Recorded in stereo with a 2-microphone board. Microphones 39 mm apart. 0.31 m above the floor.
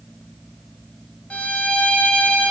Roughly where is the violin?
Left.